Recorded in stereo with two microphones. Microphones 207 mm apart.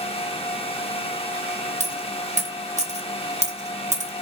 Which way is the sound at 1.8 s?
35° right (ahead or behind).